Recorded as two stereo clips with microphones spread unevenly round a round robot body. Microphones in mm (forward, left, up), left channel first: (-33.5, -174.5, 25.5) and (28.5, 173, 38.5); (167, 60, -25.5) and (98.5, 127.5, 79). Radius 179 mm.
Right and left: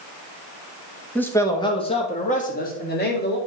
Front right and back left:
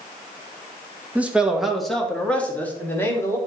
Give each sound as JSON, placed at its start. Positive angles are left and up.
{"t": 1.1, "sound": "a man speaking", "azimuth_deg": -20, "distance_m": 1.3}